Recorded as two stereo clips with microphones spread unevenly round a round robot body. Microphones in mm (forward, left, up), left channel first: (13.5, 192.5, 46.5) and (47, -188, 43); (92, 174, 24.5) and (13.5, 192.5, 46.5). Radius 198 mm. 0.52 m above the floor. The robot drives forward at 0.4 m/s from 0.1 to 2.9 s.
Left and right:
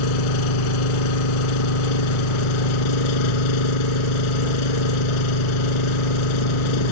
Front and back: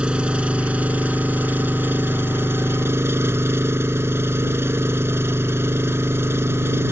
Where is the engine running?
90° left; by 6.9 s 110° left.